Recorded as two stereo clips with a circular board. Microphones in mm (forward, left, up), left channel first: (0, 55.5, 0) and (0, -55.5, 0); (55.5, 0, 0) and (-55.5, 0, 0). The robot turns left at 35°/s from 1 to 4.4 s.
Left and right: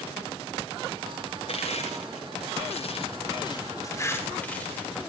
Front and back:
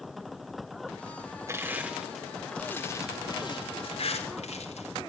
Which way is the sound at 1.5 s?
120° left.